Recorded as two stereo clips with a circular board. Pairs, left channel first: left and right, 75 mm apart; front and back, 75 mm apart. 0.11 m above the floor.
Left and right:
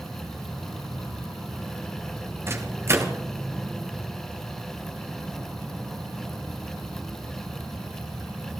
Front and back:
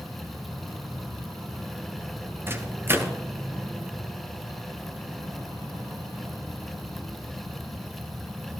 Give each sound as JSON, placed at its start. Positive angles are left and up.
{"t": 2.5, "sound": "a microwave", "azimuth_deg": -130, "distance_m": 1.5}